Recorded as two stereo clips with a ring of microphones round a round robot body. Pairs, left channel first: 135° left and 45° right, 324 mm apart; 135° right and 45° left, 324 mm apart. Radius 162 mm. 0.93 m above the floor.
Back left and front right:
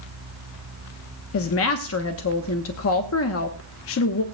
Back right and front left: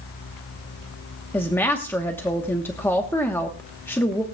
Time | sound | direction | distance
1.3 | a woman speaking | 145° left | 0.9 m